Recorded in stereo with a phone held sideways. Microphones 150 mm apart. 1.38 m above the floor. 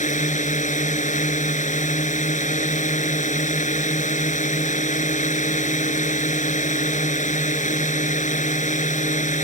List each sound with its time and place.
0.0 s a drone: 55° left (ahead or behind)